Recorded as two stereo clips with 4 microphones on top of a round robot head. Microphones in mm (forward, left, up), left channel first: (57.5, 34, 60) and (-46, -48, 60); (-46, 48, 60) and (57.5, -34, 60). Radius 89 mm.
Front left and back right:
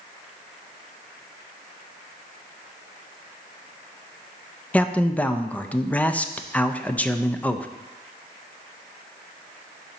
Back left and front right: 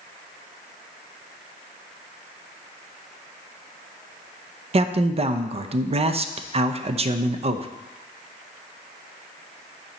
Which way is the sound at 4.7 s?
40° right.